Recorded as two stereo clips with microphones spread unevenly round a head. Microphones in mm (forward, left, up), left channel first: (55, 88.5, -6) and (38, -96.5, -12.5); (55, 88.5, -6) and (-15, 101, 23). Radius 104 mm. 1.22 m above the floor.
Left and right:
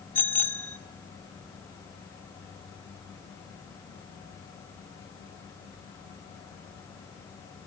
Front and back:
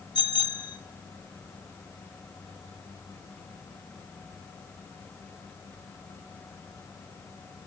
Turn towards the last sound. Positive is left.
turn(degrees=5)